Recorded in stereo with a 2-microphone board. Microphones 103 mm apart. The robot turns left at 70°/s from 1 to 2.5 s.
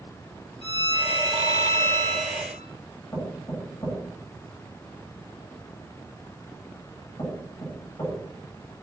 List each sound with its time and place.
0.6 s a violin: 90° left, 7 m; by 2.7 s 15° right, 7 m
3.1 s knocking: 35° left (ahead or behind), 9.5 m